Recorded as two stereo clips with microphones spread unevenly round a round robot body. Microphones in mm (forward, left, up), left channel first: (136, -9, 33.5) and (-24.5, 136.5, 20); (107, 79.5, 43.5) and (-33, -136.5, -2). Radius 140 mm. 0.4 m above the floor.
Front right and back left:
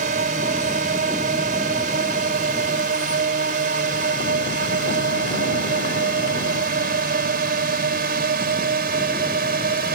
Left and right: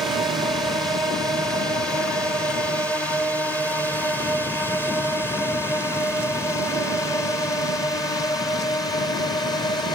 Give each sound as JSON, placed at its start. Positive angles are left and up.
{"t": 0.0, "sound": "a drone", "azimuth_deg": 160}